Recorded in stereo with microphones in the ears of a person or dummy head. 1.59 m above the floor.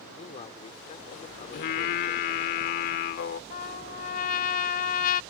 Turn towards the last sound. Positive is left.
turn(degrees=50)  # may be behind; listen again after turning